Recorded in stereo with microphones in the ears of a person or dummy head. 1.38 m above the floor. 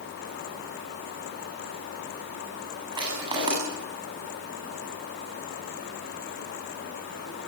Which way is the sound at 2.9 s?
30° right (ahead or behind).